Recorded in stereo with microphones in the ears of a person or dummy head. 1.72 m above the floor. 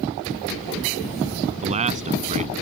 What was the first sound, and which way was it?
A man speaking, 35° right (ahead or behind).